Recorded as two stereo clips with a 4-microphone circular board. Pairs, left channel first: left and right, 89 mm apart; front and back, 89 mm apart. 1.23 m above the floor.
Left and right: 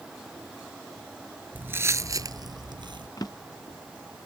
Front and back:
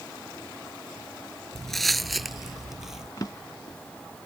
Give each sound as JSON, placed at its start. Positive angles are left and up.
{"t": 1.6, "sound": "footsteps", "azimuth_deg": -75}
{"t": 3.2, "sound": "a drawer", "azimuth_deg": 45}